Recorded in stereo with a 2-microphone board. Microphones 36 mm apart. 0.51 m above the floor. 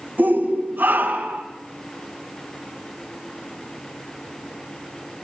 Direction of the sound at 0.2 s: 65° right (ahead or behind).